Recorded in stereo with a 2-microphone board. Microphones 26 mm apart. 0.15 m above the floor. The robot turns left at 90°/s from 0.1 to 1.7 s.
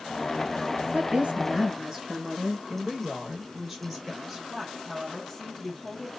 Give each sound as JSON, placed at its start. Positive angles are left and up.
{"t": 0.9, "sound": "a woman speaking", "azimuth_deg": -90, "distance_m": 2.5}
{"t": 2.7, "sound": "a woman speaking", "side_deg": -5, "distance_m": 2.0}
{"t": 4.5, "sound": "a woman speaking", "side_deg": 10, "distance_m": 3.5}